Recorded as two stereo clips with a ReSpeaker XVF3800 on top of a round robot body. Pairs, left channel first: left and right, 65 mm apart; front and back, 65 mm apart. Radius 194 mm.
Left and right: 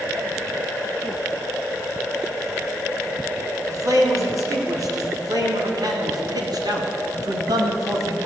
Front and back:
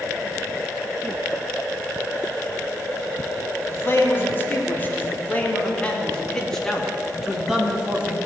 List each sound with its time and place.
3.7 s a man speaking: 55° right, 4 m; by 8.2 s 110° right, 2.5 m